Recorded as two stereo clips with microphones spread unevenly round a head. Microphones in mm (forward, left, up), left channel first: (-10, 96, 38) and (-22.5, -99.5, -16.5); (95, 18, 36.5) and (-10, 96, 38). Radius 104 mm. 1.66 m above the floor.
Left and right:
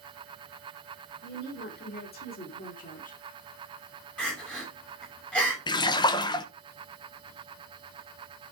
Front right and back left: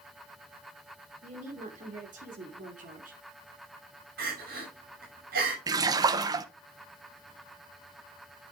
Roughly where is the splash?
Left.